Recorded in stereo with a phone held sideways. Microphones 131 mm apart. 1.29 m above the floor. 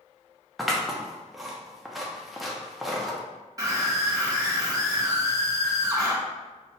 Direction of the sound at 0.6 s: Centre (ahead or behind).